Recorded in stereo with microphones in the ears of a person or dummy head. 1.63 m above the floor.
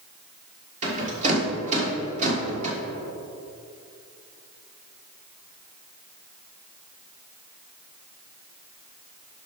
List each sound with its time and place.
0.8 s a rattle: 35° right (ahead or behind), 1.7 m